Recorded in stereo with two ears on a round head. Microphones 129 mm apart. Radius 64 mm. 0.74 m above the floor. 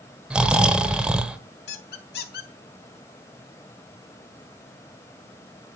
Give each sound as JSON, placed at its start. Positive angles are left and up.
{"t": 0.3, "sound": "snoring", "side_deg": -5, "distance_m": 0.9}
{"t": 1.7, "sound": "a squeak", "side_deg": 80, "distance_m": 1.6}